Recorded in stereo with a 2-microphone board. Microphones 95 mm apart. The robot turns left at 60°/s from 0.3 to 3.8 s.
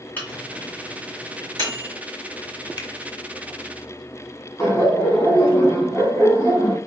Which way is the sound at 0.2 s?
20° left (ahead or behind).